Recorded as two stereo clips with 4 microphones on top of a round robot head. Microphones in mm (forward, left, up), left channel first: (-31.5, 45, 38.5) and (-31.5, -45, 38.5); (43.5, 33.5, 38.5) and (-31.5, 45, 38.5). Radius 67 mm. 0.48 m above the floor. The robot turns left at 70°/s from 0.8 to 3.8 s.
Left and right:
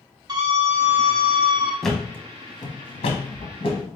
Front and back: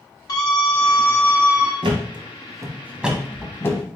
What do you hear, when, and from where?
0.3 s a scream: 45° right, 2 m; by 1.7 s 110° right, 2 m
1.8 s a thud: straight behind, 1.1 m; by 3.9 s 40° left, 1.1 m